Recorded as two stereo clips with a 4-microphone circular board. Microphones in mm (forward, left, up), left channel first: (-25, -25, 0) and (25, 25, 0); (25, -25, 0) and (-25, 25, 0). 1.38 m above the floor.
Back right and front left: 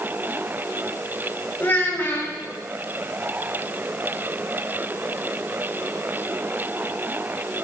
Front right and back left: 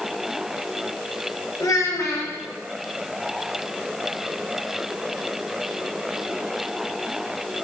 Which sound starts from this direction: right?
A child speaking, at 1.6 s.